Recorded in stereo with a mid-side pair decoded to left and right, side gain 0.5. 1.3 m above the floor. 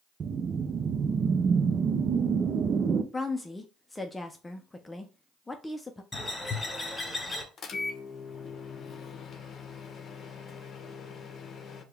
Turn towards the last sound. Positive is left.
turn(degrees=50)